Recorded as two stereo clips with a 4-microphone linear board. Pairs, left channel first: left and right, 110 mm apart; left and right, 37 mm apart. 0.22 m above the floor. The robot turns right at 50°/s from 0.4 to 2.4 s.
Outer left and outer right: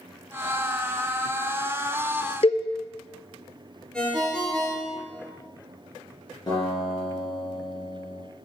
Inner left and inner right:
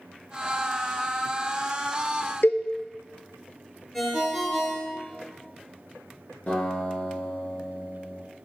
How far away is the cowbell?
About 0.6 m.